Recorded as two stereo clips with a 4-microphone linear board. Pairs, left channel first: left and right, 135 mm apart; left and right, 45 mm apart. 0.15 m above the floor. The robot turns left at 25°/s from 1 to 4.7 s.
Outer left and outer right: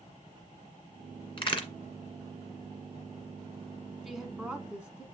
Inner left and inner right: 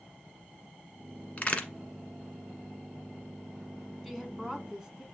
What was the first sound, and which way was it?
A crack, 40° left (ahead or behind).